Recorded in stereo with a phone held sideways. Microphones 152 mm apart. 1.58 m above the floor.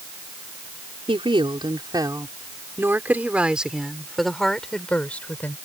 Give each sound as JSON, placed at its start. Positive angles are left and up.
{"t": 1.1, "sound": "a woman speaking", "side_deg": -35}